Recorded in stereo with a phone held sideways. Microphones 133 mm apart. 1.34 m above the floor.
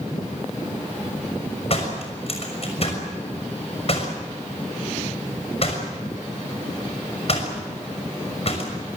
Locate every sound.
1.7 s a door slam: 50° left (ahead or behind), 6 m